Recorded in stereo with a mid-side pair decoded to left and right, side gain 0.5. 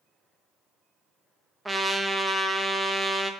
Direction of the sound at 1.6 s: 15° right.